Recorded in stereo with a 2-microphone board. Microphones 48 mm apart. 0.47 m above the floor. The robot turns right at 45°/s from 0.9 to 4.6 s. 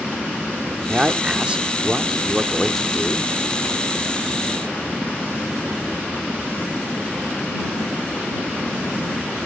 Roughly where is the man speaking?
Right.